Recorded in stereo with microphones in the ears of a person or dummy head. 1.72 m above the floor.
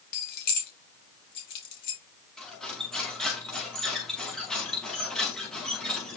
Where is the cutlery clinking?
5° left (ahead or behind), 2.5 m.